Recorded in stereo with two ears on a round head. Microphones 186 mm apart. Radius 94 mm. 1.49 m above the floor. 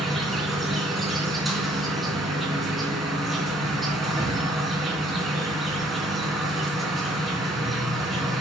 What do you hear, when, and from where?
0.0 s an insect: centre (ahead or behind), 3.5 m